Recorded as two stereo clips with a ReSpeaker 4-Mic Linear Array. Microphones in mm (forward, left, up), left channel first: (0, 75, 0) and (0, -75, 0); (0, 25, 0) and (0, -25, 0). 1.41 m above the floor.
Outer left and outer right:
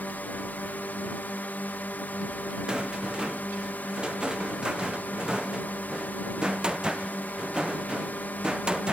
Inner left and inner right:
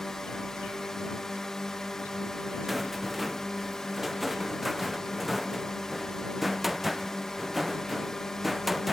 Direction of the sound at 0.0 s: 10° left (ahead or behind).